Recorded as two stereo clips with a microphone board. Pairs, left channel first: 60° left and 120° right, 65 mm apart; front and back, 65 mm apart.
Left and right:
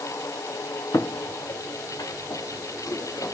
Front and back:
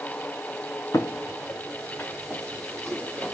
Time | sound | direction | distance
0.9 | footsteps | 30° left | 0.8 m